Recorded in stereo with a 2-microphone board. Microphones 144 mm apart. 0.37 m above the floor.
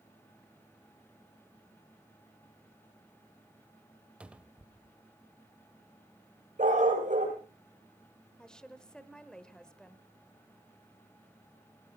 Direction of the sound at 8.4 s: 5° left (ahead or behind).